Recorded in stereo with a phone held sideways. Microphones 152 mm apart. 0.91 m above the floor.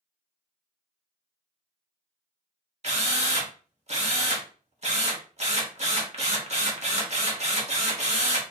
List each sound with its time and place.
2.8 s a drill: 45° right (ahead or behind), 1.0 m